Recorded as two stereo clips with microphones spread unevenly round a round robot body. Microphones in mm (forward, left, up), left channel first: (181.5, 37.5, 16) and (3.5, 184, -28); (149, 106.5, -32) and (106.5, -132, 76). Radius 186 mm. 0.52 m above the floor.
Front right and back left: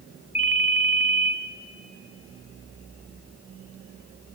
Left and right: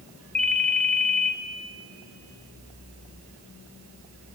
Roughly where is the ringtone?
Ahead left.